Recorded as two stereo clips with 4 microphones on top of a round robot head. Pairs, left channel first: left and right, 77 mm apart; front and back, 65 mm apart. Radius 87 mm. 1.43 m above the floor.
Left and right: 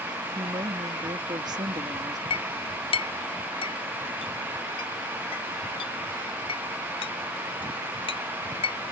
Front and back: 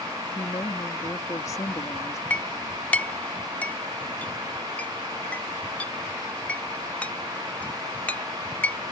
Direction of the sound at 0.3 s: 50° right.